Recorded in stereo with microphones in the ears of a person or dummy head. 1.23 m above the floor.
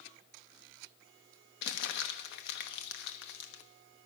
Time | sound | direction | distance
1.6 | crumpling | 65° left (ahead or behind) | 1.1 m